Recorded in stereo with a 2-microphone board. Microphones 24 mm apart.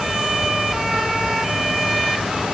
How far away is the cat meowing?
I don't hear a cat meowing.